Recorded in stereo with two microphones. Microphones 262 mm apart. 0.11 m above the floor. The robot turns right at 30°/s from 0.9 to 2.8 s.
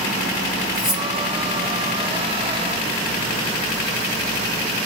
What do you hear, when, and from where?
0.8 s cutlery clinking: 15° left (ahead or behind), 2 m; by 1.1 s 10° left (ahead or behind), 2 m